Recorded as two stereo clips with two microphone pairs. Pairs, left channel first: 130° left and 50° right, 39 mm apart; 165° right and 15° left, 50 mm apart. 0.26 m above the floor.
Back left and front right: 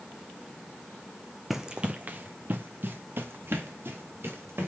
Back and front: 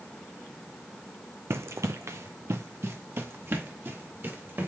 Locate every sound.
1.5 s running footsteps: 35° left, 0.6 m; by 4.7 s 30° right, 3 m